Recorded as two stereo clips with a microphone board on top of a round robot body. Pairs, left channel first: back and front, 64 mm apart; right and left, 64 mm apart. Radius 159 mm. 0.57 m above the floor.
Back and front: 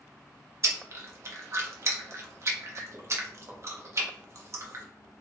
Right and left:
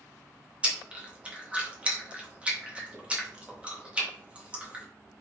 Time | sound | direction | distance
0.6 | chewing | 25° left | 1.4 m